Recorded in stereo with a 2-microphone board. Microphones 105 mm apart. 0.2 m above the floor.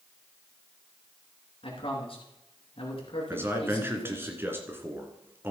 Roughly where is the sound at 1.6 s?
Left.